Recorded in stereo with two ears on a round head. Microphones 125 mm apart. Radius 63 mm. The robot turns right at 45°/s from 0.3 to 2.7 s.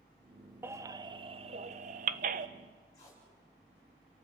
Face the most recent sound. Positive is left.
turn(degrees=25)  # may be behind; listen again after turning